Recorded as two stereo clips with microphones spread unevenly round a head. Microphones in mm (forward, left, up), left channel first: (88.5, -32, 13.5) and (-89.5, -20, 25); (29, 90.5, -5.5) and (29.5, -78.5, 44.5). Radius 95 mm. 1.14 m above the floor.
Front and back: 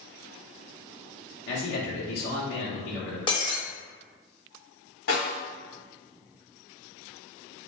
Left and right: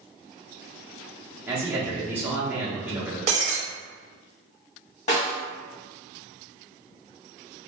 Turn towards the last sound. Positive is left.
turn(degrees=35)